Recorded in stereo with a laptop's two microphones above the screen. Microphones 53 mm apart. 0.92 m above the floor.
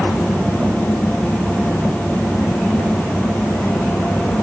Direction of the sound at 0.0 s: 40° left (ahead or behind).